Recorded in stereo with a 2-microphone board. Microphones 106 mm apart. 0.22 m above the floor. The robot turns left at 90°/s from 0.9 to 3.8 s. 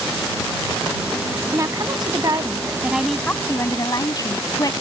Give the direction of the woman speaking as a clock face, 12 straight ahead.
1 o'clock.